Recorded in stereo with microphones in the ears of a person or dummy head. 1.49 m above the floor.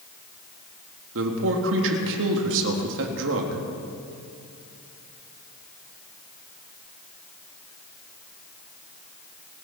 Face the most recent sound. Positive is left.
turn(degrees=-70)  # may be behind; listen again after turning